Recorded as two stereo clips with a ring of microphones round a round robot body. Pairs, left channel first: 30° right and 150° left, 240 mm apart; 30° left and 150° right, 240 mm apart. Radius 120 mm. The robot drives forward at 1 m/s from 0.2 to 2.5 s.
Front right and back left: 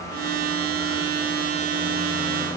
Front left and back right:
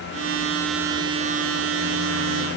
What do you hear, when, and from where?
Only background noise.